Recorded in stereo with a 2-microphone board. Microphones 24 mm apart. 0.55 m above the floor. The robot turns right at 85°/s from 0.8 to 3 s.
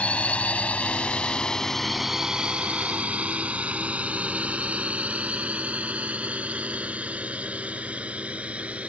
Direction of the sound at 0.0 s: 70° left (ahead or behind).